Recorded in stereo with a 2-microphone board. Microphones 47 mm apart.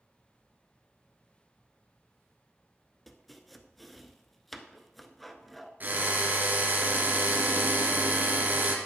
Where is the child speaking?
No child speaking in this recording.